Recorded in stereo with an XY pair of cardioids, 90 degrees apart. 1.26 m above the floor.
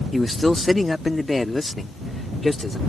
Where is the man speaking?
15° left; by 2.8 s 20° left.